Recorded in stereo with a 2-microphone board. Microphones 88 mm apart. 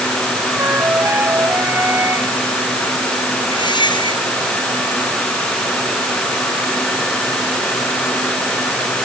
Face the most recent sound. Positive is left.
turn(degrees=60)  # may be behind; listen again after turning